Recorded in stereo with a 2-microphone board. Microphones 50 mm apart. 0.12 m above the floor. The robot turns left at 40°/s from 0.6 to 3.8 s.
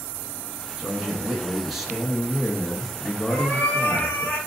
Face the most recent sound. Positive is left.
turn(degrees=45)  # may be behind; listen again after turning